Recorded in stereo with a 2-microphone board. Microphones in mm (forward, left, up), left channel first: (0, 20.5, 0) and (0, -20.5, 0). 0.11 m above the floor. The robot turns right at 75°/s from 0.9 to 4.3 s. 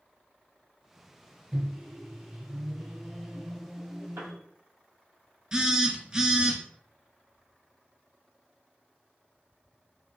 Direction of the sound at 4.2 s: 70° right (ahead or behind).